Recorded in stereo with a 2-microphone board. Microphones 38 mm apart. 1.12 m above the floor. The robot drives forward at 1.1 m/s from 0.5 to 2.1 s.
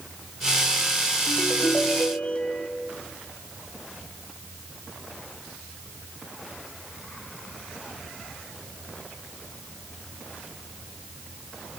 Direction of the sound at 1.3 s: 50° left (ahead or behind).